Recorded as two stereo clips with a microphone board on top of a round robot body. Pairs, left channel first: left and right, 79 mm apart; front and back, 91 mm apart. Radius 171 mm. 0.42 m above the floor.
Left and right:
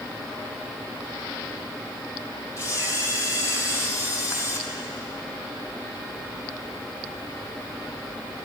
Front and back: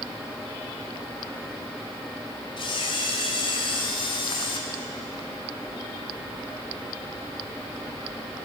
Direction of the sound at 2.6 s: 40° left.